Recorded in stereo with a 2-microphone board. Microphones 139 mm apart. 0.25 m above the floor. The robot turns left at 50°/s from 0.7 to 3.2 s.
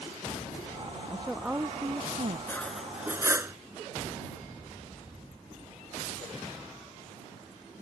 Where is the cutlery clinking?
15° left; by 3.5 s 20° right.